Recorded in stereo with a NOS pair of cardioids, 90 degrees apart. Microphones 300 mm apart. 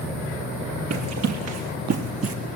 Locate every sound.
0.9 s running footsteps: 65° right, 4.5 m; by 2.4 s 50° right, 4 m